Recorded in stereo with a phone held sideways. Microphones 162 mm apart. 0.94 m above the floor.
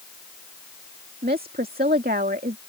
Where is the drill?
No drill in this recording.